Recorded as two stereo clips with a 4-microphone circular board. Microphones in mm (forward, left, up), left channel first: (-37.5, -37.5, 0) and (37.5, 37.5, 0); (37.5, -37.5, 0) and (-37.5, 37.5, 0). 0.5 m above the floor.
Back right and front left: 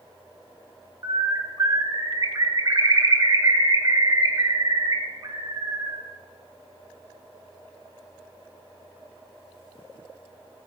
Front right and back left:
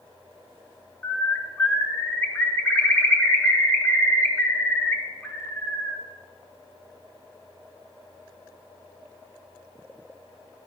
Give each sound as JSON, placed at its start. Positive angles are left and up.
{"t": 1.0, "sound": "a bird", "azimuth_deg": 10, "distance_m": 1.1}